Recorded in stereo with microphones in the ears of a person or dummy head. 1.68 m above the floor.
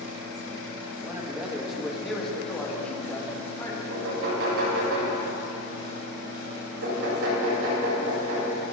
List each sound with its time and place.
1.0 s a man speaking: 5° right (ahead or behind), 1.8 m; by 3.8 s 20° left (ahead or behind), 3 m
3.9 s knocking: 75° right (ahead or behind), 5.5 m